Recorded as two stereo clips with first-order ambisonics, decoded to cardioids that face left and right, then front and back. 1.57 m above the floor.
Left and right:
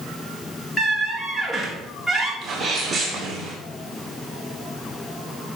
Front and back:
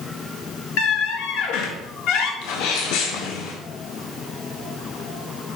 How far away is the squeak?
About 1.9 m.